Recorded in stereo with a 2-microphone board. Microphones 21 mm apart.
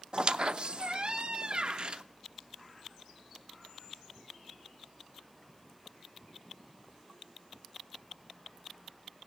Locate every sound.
0.1 s a squeak: 40° right (ahead or behind), 0.5 m